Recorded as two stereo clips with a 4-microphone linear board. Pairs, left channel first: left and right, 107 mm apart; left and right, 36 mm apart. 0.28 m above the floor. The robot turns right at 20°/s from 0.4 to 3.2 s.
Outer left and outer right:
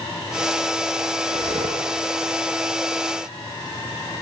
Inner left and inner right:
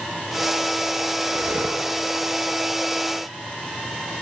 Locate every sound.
1.2 s breathing: 80° right, 7 m; by 1.9 s 70° right (ahead or behind), 7 m